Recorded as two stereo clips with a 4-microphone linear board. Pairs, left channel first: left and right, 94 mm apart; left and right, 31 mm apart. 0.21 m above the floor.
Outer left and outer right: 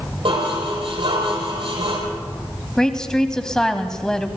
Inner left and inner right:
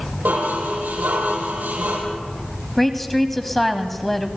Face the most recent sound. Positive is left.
turn(degrees=5)  # may be behind; listen again after turning